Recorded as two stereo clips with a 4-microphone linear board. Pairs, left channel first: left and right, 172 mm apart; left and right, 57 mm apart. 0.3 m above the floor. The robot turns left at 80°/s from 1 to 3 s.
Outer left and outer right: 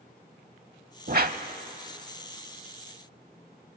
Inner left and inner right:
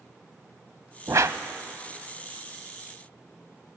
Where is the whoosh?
60° right (ahead or behind), 0.9 m; by 1.4 s 55° right (ahead or behind), 0.9 m.